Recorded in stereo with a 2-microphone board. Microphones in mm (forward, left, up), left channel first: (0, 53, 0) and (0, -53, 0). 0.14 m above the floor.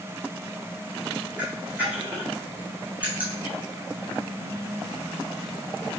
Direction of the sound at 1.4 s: 15° right (ahead or behind).